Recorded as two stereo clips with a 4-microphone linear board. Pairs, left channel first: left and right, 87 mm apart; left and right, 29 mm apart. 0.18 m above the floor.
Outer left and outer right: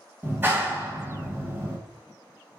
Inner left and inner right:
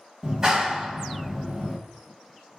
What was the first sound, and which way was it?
A clap, 25° right (ahead or behind).